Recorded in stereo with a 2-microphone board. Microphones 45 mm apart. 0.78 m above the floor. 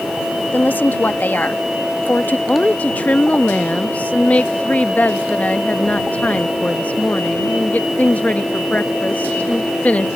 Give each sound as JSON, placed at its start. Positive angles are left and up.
{"t": 0.5, "sound": "a woman speaking", "side_deg": 45}
{"t": 2.5, "sound": "a woman speaking", "side_deg": 35}